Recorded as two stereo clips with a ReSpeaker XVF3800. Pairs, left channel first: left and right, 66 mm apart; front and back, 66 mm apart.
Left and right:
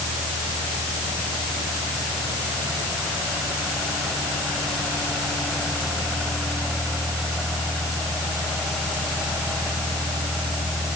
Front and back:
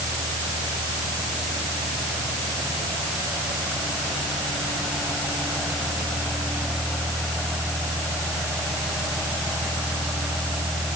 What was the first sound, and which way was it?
Only background noise.